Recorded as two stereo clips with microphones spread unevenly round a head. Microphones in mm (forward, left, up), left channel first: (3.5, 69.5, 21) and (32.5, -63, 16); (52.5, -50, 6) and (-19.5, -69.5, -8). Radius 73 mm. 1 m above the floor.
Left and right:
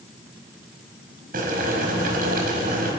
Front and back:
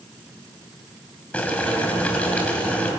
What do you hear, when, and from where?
1.3 s boiling: 55° right, 5 m